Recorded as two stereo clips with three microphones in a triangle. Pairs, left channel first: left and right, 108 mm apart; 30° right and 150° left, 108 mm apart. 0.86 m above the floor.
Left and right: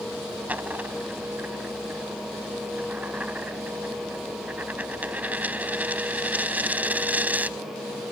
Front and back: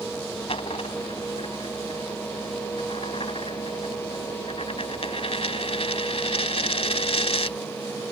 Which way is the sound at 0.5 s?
15° right.